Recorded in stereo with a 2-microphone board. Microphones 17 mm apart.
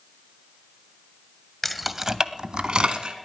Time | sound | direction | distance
1.6 | keys jangling | 10° left (ahead or behind) | 0.6 m